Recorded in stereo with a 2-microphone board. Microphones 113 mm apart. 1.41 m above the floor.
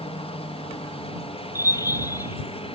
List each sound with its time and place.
0.0 s a helicopter: 60° left (ahead or behind)
1.6 s a bird: 30° left (ahead or behind)